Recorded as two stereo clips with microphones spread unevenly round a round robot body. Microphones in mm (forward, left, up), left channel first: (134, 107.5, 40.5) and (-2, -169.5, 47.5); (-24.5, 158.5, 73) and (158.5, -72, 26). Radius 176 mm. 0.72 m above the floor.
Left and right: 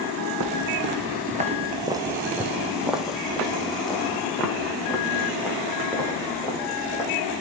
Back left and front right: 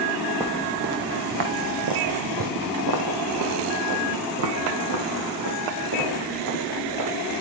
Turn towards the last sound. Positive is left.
turn(degrees=-20)